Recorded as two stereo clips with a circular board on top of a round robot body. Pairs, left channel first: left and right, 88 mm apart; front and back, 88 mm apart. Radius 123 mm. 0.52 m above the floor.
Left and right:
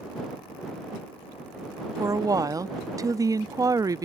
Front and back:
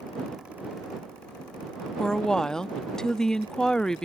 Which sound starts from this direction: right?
A woman speaking, at 2.0 s.